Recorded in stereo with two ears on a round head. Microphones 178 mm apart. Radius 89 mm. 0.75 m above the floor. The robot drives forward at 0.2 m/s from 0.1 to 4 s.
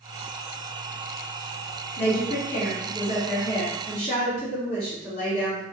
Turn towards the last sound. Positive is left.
turn(degrees=30)  # may be behind; listen again after turning